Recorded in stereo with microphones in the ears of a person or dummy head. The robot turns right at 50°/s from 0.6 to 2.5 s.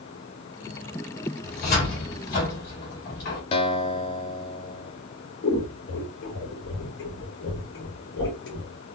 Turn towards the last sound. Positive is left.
turn(degrees=55)  # may be behind; listen again after turning